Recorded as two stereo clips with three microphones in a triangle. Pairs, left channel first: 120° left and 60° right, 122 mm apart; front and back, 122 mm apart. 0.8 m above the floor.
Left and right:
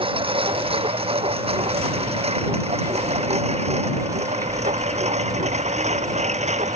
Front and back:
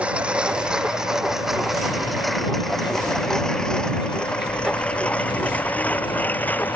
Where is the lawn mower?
100° right; by 6.8 s 75° right.